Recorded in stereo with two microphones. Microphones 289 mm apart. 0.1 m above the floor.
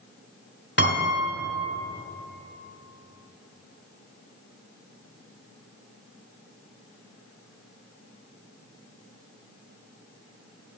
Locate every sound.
0.8 s a piano: 40° left (ahead or behind), 1.4 m